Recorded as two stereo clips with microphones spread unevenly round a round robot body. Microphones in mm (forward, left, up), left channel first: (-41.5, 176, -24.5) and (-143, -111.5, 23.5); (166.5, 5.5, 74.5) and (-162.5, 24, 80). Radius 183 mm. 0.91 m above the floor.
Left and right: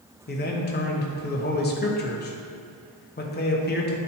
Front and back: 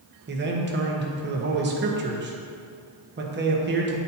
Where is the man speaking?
120° left, 1.1 m.